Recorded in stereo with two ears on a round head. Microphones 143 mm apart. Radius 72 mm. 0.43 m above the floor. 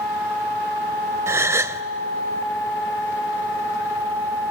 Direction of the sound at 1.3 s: 15° right (ahead or behind).